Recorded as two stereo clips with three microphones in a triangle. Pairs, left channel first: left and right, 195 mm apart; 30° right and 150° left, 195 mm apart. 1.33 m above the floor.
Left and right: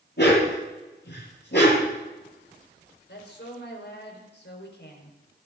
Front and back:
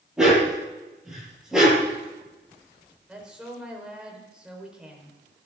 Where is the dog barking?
65° left, 9 m.